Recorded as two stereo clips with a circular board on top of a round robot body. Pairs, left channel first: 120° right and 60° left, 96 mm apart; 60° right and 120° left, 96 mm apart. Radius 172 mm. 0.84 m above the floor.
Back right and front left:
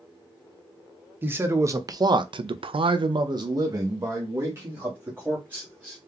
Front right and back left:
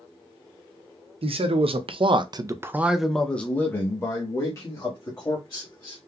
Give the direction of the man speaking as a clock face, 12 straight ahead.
8 o'clock.